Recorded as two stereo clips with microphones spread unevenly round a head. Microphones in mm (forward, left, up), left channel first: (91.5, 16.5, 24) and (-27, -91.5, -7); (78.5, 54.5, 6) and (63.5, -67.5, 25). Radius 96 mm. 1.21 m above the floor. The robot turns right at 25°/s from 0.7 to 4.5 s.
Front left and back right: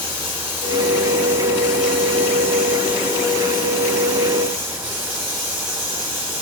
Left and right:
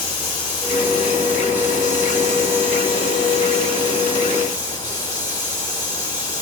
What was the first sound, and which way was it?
Running water, 100° left.